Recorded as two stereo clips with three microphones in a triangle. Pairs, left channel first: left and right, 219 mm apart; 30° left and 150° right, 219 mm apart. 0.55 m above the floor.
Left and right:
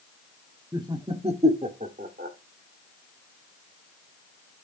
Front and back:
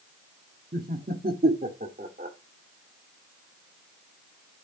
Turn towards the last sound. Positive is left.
turn(degrees=-115)